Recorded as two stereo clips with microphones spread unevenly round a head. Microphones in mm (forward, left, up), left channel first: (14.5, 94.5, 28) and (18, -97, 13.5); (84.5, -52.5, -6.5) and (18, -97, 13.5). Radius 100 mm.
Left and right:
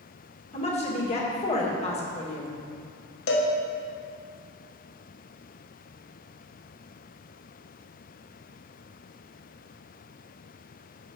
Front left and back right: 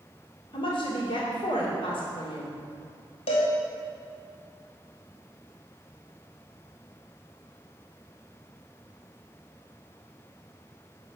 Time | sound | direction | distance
0.5 | a woman speaking | 35° left | 2.5 m
3.3 | a cowbell | 60° left | 1.3 m